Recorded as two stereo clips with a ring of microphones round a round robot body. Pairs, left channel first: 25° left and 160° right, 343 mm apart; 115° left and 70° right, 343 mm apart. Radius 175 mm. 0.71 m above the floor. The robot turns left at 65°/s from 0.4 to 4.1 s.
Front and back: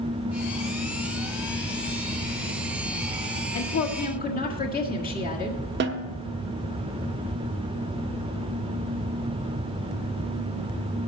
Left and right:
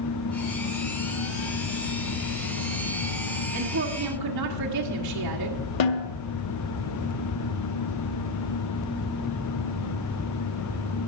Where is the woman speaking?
Straight ahead, 1.8 m; by 5.6 s 40° right, 1.8 m.